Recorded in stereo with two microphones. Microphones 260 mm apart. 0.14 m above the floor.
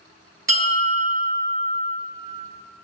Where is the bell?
55° right (ahead or behind), 2 m.